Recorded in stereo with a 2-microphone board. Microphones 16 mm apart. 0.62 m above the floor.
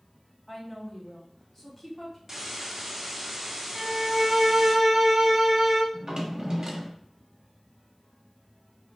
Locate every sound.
0.5 s a woman speaking: 25° left (ahead or behind), 1.2 m
2.3 s a hiss: 20° right (ahead or behind), 1.0 m
3.8 s a violin: 35° right (ahead or behind), 0.8 m
5.9 s a drawer: 45° right (ahead or behind), 1.0 m